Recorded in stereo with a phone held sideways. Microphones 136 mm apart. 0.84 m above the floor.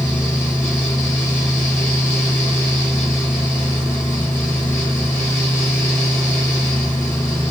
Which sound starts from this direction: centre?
A fan, at 0.0 s.